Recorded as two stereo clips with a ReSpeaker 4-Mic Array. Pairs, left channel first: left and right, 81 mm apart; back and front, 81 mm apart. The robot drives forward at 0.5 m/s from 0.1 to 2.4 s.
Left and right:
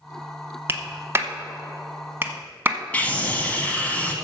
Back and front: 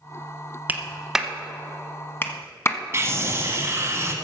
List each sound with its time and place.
0.7 s a clap: 55° right, 0.9 m; by 2.8 s 140° right, 1.0 m
2.9 s a scream: 30° left, 1.9 m